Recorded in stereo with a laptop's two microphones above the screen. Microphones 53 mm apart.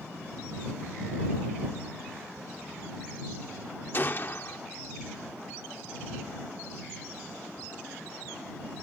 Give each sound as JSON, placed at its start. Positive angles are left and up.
{"t": 3.9, "sound": "a gunshot", "side_deg": 40}